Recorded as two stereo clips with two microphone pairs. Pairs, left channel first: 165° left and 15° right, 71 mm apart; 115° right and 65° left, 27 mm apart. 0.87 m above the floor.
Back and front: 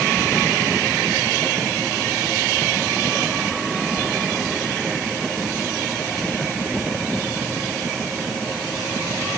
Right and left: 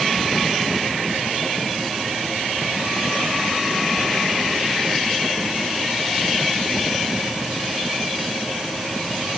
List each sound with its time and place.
Only background noise.